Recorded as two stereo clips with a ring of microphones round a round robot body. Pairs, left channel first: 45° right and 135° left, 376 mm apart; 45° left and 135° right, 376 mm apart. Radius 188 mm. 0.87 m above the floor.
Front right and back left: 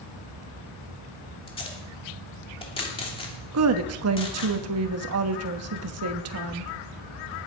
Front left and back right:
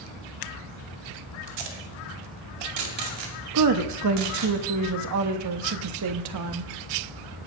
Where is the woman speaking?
175° right, 1.2 m.